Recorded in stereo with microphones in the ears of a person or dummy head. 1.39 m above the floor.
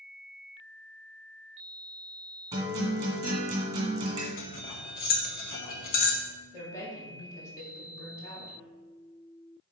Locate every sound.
2.5 s a guitar: 20° right (ahead or behind), 1.9 m
4.4 s cutlery clinking: 50° left (ahead or behind), 0.8 m
6.5 s a woman speaking: 20° left (ahead or behind), 1.8 m